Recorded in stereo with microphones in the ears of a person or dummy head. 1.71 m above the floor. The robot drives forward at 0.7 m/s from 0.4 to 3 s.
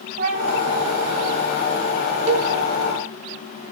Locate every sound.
0.2 s a cat meowing: 40° right (ahead or behind), 2.5 m; by 0.9 s 35° right (ahead or behind), 2.5 m
2.3 s a cowbell: 35° right (ahead or behind), 0.5 m; by 2.5 s 25° right (ahead or behind), 0.7 m